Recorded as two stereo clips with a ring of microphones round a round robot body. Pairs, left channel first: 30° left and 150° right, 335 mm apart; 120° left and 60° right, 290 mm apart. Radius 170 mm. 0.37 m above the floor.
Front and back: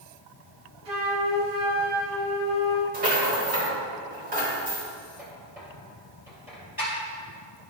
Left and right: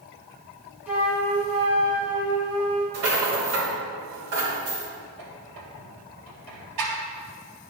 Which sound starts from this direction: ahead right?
A squeak, at 5.2 s.